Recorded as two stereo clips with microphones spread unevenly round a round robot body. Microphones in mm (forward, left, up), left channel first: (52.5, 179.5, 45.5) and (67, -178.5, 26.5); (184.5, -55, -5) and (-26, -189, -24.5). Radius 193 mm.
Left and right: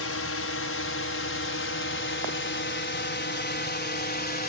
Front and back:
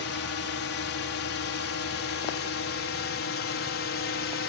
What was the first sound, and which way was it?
A drone, 50° left.